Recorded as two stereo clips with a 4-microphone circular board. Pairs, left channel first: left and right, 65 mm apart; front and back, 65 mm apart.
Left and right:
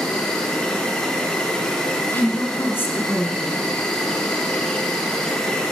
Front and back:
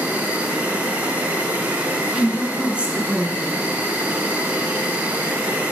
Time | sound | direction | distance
0.0 | an insect | 150° left | 1.3 m
2.1 | a woman speaking | 120° left | 1.5 m